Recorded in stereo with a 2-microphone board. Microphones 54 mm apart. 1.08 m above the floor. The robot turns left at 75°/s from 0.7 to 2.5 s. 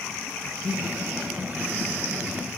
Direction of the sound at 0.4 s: 15° left (ahead or behind).